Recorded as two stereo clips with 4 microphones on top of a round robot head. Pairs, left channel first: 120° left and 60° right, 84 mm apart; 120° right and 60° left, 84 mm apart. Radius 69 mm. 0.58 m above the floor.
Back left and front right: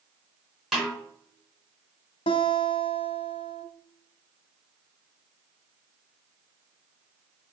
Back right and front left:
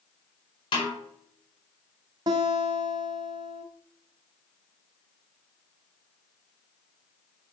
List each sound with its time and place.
0.7 s a snare drum: 150° right, 4.5 m
2.3 s a guitar: 105° left, 1.1 m